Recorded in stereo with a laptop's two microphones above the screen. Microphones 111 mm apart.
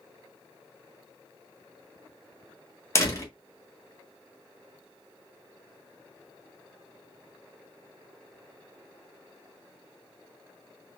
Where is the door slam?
30° left (ahead or behind), 1.7 m.